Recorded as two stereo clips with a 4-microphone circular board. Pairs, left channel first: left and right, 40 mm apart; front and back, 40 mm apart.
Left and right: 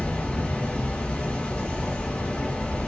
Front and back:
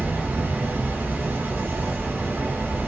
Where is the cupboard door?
I don't hear a cupboard door.